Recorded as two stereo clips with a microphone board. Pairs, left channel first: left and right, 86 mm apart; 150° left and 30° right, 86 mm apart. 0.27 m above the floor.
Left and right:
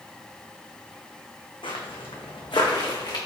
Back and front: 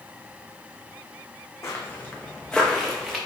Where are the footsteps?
95° left, 1.0 m; by 3.2 s 55° left, 1.5 m.